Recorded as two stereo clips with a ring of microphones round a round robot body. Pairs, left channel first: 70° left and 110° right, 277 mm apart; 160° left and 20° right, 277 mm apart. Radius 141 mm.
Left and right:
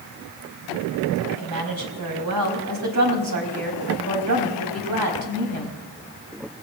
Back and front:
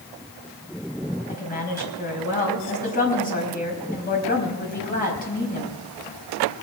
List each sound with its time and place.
1.3 s a woman speaking: 140° right, 4.5 m